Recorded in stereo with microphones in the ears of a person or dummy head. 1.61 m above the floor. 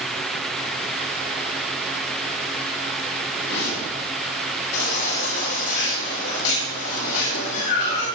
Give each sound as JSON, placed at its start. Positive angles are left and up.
{"t": 3.3, "sound": "a whoosh", "side_deg": 70, "distance_m": 6.0}
{"t": 4.7, "sound": "a baby crying", "side_deg": 70, "distance_m": 8.0}